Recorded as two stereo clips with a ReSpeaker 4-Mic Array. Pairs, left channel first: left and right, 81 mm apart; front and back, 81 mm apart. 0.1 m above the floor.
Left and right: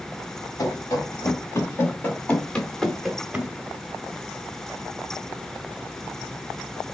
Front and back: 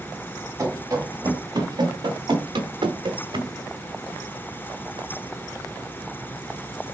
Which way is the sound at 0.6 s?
130° left.